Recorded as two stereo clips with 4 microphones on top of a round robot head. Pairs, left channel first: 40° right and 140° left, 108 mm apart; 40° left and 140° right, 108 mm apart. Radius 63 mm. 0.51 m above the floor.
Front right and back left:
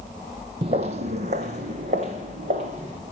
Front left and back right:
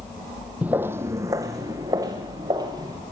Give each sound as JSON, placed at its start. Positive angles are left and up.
{"t": 0.6, "sound": "footsteps", "azimuth_deg": 150, "distance_m": 0.6}